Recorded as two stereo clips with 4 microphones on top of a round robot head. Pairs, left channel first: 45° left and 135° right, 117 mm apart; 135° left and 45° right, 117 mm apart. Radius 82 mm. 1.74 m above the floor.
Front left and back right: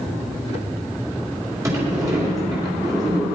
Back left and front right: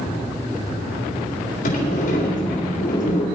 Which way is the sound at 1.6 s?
160° left.